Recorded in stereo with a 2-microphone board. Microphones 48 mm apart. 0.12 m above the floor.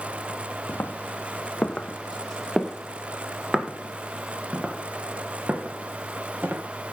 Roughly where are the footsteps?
Left.